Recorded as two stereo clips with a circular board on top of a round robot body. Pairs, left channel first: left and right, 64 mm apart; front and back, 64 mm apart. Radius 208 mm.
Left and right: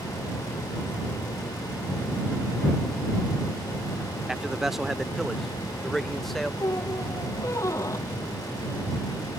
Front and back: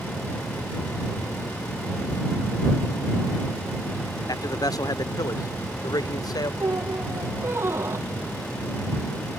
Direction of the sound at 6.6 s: 130° left.